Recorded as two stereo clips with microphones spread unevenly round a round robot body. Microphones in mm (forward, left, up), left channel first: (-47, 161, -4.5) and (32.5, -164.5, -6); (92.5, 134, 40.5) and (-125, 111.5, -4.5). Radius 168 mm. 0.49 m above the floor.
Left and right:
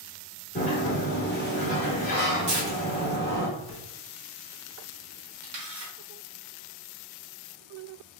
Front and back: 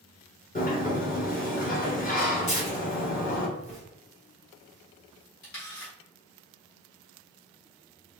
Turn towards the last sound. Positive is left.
turn(degrees=-35)